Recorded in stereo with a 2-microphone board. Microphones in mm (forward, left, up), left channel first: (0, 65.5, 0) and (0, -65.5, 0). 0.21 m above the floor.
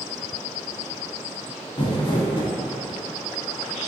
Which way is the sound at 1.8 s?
35° left (ahead or behind).